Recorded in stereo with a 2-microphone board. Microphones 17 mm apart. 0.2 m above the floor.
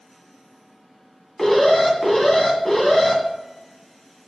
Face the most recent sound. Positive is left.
turn(degrees=30)  # may be behind; listen again after turning